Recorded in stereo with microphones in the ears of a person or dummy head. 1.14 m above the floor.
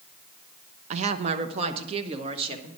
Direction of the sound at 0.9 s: 40° right (ahead or behind).